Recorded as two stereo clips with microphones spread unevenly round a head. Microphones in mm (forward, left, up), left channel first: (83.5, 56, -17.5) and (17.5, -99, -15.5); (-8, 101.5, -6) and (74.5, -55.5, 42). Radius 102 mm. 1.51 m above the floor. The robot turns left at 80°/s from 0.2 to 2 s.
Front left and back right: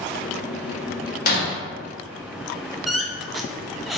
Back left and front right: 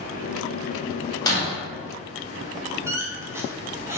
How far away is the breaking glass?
About 1.4 m.